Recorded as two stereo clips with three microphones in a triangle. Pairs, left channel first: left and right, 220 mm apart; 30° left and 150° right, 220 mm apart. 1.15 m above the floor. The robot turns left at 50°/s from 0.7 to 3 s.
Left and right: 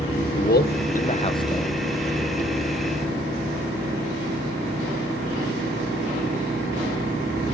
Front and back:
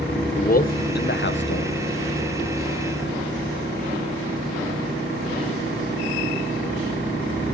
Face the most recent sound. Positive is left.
turn(degrees=-50)